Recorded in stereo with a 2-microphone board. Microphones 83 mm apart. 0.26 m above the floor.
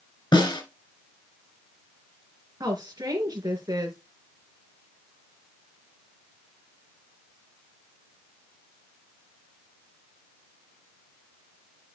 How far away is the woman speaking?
About 3 m.